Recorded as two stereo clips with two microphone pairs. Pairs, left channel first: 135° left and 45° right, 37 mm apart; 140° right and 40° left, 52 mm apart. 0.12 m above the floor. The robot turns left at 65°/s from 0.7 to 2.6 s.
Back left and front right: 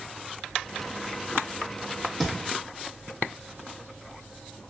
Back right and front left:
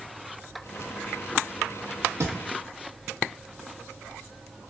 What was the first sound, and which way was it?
A thud, 55° left.